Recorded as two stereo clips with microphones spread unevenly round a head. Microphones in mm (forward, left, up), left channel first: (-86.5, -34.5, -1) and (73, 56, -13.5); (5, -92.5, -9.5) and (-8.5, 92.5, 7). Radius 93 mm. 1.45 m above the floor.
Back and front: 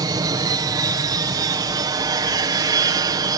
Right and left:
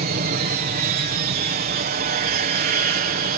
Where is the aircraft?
90° left.